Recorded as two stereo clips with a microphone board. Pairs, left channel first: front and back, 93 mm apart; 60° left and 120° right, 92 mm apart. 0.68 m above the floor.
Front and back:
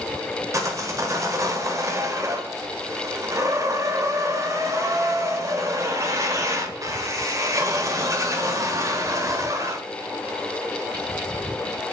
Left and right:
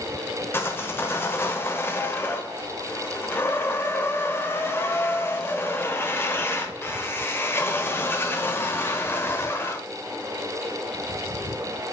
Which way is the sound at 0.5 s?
125° left.